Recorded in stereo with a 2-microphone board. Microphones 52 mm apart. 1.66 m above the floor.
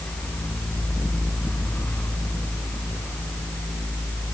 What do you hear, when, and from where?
Only background noise.